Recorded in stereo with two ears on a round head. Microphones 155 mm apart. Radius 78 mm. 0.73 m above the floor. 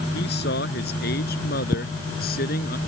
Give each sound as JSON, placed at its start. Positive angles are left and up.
{"t": 0.1, "sound": "a man speaking", "side_deg": 65}